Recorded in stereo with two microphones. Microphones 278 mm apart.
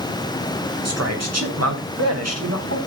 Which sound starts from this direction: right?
A man speaking, at 0.8 s.